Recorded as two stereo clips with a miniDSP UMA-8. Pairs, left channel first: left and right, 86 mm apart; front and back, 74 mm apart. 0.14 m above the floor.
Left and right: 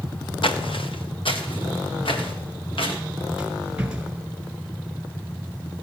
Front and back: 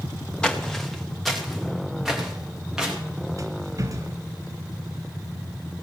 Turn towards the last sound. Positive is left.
turn(degrees=-165)